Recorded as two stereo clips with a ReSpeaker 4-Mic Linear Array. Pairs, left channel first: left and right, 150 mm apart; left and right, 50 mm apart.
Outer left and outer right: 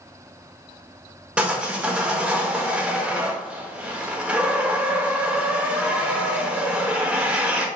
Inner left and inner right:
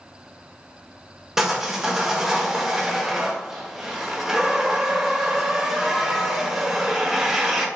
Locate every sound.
1.4 s sawing: 5° right (ahead or behind), 1.2 m